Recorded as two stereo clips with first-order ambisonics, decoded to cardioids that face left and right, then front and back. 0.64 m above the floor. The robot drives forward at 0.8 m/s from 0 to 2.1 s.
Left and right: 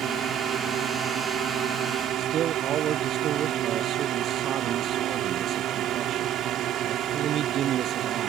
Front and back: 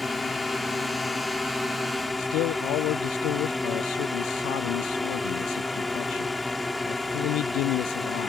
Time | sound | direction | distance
0.0 | a drone | 70° right | ?
2.2 | a man speaking | 35° right | ?